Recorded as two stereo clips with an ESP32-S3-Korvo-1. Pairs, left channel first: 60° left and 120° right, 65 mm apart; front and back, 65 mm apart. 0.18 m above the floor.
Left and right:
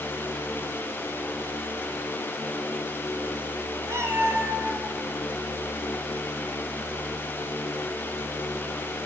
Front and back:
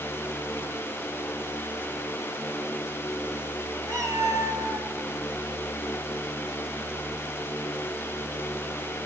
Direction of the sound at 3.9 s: 155° right.